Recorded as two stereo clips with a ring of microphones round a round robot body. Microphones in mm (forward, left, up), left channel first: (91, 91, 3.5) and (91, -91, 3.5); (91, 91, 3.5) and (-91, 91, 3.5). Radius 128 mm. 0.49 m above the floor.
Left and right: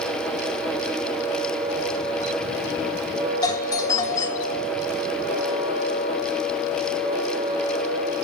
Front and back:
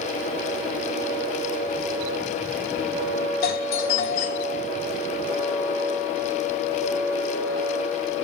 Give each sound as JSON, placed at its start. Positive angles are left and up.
{"t": 3.4, "sound": "a doorbell", "azimuth_deg": 25, "distance_m": 3.0}